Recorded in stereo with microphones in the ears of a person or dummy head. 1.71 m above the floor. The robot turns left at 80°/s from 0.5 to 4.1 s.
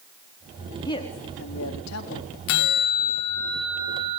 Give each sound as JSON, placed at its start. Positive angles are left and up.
{"t": 0.8, "sound": "a woman speaking", "azimuth_deg": 165, "distance_m": 4.0}
{"t": 2.5, "sound": "a bell", "azimuth_deg": 85, "distance_m": 1.1}